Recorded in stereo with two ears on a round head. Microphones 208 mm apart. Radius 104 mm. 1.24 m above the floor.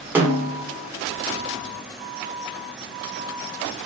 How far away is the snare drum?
About 0.9 m.